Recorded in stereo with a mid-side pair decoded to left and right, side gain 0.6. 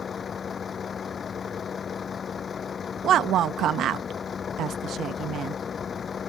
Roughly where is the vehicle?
Ahead left.